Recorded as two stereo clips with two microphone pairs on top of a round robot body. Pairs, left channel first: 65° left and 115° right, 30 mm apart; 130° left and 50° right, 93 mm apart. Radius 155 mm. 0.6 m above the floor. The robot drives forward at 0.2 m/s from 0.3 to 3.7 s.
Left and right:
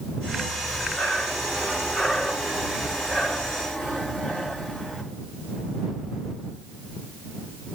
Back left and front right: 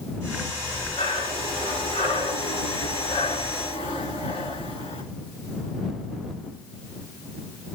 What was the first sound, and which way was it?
Breathing, 120° left.